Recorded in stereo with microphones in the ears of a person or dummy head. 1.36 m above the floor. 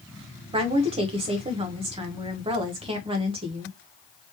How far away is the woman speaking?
About 0.9 m.